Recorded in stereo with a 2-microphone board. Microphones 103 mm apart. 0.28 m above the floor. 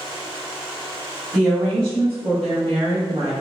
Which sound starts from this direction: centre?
A woman speaking, at 1.3 s.